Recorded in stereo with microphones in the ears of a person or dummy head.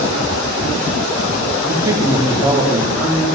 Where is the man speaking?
20° right (ahead or behind), 1.8 m.